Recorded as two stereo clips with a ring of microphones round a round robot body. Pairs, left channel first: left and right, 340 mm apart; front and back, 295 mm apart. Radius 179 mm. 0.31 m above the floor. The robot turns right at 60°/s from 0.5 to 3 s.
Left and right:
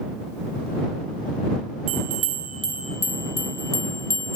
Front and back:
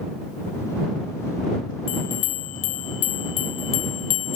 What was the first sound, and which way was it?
A bell, 60° right.